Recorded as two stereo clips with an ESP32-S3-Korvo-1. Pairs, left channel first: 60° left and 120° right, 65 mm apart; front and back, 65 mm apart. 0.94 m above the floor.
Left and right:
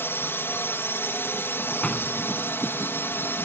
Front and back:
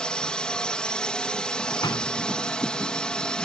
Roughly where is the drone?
Ahead left.